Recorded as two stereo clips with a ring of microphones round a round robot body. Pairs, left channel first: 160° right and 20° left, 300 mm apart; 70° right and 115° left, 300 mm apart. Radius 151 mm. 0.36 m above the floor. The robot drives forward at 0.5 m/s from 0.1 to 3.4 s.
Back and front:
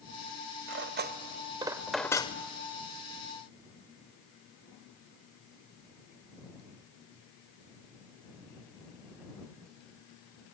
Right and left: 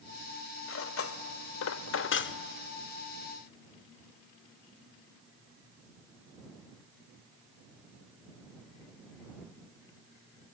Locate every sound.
0.7 s cutlery clinking: 25° right, 1.0 m; by 2.4 s 100° right, 0.6 m